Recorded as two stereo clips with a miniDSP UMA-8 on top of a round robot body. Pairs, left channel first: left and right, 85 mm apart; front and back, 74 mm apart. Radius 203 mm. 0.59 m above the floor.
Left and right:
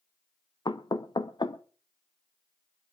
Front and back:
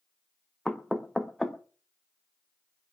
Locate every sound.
0.7 s knocking: 80° left, 1.3 m